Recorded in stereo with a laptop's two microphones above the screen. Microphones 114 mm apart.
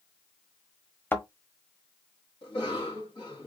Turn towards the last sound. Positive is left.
turn(degrees=45)  # may be behind; listen again after turning